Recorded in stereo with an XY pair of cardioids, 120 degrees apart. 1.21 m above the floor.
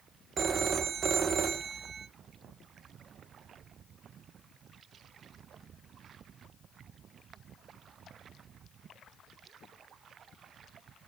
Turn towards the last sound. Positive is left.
turn(degrees=-40)